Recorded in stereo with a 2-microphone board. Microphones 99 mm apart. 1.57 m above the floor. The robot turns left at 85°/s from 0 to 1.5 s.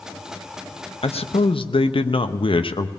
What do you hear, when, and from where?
1.0 s a man speaking: 105° left, 0.6 m; by 2.9 s 65° left, 0.6 m